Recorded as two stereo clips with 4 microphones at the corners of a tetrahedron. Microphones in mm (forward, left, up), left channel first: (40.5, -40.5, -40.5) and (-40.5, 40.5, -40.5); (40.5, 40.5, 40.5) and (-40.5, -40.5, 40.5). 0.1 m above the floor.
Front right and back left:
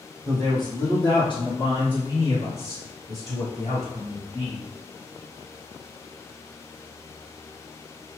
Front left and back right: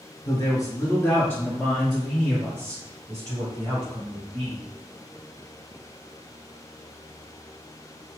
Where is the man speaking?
5° left, 2 m; by 4.7 s 95° right, 3.5 m.